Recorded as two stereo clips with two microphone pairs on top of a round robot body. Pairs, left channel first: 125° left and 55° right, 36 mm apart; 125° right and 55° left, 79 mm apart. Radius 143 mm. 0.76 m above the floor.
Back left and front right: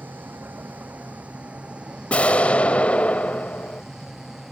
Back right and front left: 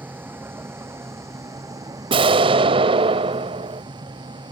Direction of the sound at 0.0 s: 15° right.